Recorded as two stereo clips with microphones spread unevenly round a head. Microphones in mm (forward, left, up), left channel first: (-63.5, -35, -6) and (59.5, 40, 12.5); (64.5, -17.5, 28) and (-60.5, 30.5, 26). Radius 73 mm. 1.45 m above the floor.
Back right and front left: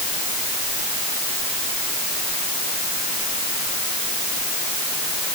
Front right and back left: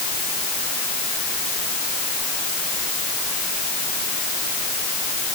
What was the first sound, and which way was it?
Only background noise.